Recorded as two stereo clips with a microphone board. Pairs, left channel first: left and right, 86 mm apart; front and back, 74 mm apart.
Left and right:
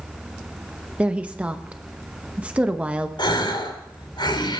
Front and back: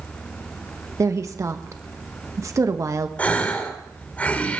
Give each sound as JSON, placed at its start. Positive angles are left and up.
{"t": 1.0, "sound": "a woman speaking", "azimuth_deg": -160, "distance_m": 1.0}
{"t": 3.2, "sound": "a gasp", "azimuth_deg": 70, "distance_m": 2.5}